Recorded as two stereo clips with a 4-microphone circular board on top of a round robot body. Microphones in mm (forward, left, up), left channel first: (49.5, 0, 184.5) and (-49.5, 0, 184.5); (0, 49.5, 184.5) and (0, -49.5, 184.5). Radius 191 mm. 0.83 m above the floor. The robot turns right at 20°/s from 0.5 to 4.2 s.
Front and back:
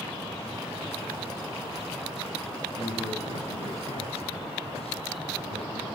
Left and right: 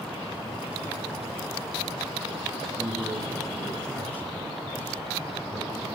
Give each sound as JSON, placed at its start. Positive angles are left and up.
{"t": 2.7, "sound": "a man speaking", "azimuth_deg": -15, "distance_m": 7.0}